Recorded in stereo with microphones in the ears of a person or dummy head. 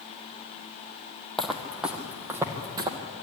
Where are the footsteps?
5° left (ahead or behind), 2.5 m; by 3.0 s 20° right (ahead or behind), 2 m.